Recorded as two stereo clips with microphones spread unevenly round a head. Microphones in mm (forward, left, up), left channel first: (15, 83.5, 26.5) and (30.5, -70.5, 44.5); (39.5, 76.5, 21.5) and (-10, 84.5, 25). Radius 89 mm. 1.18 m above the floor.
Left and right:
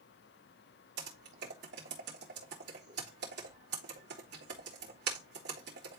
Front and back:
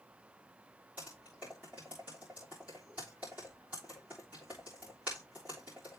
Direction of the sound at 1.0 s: 110° right.